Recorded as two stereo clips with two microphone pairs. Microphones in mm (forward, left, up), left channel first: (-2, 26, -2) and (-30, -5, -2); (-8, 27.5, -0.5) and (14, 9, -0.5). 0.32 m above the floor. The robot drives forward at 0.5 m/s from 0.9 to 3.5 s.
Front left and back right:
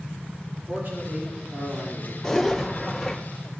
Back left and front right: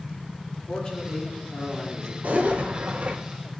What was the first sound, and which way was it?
A man speaking, 160° right.